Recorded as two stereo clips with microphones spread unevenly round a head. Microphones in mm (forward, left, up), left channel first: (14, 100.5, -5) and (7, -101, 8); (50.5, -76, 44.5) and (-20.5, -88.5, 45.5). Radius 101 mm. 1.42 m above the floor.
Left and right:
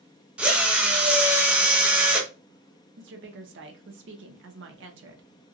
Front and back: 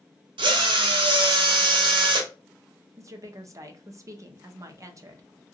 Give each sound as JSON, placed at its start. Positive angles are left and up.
{"t": 0.4, "sound": "a drill", "azimuth_deg": -175, "distance_m": 0.5}
{"t": 3.0, "sound": "a woman speaking", "azimuth_deg": -125, "distance_m": 0.7}